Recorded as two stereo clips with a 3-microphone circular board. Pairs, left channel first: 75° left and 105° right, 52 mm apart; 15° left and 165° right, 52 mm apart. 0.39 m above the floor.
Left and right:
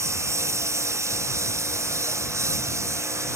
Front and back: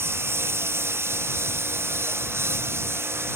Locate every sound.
0.0 s a lawn mower: 130° right